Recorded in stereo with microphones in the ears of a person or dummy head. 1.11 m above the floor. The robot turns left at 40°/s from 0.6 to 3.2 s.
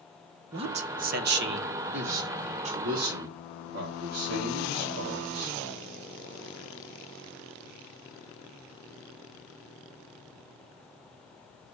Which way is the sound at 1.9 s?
65° right.